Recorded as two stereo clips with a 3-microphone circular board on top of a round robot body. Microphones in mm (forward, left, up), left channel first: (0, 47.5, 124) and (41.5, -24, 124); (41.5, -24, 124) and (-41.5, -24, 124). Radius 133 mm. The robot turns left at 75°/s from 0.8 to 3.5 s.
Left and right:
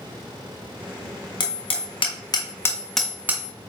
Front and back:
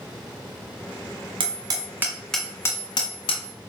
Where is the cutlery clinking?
I don't hear cutlery clinking.